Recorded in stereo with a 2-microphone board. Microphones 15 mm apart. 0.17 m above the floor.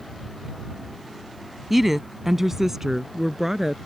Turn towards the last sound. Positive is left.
turn(degrees=-25)  # may be behind; listen again after turning